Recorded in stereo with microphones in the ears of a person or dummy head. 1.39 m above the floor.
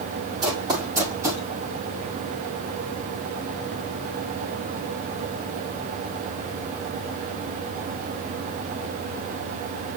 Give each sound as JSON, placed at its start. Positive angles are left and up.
{"t": 0.4, "sound": "running footsteps", "side_deg": -20, "distance_m": 6.0}